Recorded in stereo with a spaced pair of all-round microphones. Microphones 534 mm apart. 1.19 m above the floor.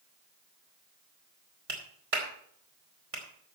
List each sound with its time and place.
1.7 s a clap: 80° right, 3 m